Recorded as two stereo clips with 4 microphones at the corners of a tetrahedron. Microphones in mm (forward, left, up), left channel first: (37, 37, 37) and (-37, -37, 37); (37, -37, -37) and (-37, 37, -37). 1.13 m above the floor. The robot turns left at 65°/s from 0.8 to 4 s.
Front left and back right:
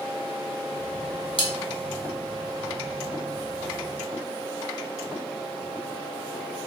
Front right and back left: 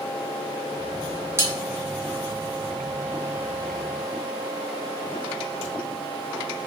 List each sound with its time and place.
1.4 s cutlery clinking: 70° left, 0.7 m; by 1.5 s 60° left, 0.7 m